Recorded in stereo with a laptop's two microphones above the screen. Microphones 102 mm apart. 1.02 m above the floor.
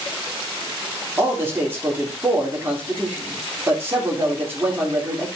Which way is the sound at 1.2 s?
20° right (ahead or behind).